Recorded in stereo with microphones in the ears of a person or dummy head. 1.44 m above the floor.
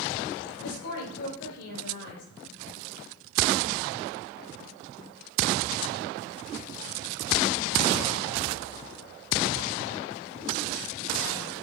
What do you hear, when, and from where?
0.6 s a woman speaking: 75° left (ahead or behind), 4 m